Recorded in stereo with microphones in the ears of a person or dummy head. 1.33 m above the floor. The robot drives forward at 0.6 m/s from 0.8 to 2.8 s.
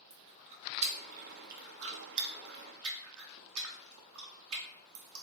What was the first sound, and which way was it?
Chewing, 35° right (ahead or behind).